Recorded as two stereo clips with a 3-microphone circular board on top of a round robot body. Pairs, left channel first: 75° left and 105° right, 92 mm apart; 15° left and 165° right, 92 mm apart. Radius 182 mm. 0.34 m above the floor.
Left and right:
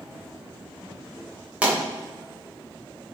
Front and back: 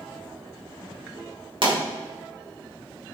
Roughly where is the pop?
Behind.